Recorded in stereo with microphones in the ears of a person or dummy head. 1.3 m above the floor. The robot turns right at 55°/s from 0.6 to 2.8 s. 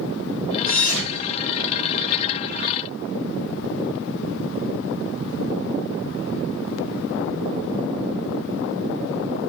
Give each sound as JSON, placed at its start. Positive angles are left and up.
{"t": 0.7, "sound": "a thud", "side_deg": 60, "distance_m": 1.4}